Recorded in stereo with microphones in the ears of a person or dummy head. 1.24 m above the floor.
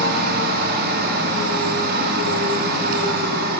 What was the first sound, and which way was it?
A machine running, 60° right (ahead or behind).